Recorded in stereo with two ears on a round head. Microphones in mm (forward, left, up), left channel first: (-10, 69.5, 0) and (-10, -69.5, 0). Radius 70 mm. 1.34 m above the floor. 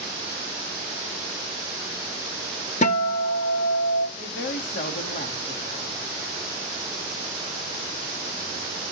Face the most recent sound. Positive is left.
turn(degrees=45)  # may be behind; listen again after turning